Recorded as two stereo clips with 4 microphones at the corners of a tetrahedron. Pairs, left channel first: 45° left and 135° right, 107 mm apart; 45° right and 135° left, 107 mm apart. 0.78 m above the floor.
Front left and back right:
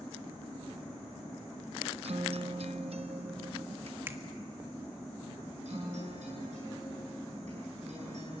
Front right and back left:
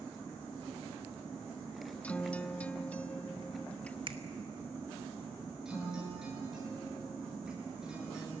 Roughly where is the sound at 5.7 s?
Behind right.